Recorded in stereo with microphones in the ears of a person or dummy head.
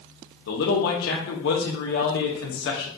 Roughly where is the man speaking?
Left.